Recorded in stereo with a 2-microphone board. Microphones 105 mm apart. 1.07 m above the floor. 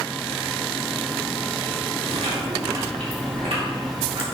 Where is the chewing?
75° right (ahead or behind), 2 m.